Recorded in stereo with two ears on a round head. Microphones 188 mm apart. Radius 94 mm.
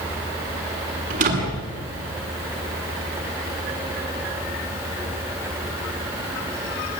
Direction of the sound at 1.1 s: 40° right (ahead or behind).